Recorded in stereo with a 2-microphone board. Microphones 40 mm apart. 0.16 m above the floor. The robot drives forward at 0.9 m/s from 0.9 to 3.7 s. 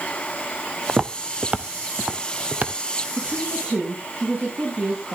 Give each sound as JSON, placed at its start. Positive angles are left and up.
{"t": 0.9, "sound": "footsteps", "side_deg": -20, "distance_m": 0.7}
{"t": 3.2, "sound": "a woman speaking", "side_deg": -40, "distance_m": 7.0}